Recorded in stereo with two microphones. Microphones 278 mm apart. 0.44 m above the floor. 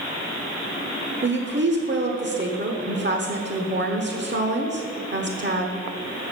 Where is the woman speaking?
40° right (ahead or behind), 1.1 m.